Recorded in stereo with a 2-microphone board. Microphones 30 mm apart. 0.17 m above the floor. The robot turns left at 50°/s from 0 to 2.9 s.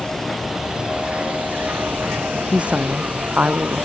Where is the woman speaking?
35° right (ahead or behind); by 3.9 s 55° right (ahead or behind).